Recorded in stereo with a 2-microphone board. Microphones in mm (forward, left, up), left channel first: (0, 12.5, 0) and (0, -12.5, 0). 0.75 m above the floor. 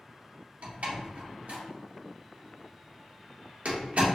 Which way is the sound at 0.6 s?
65° right (ahead or behind).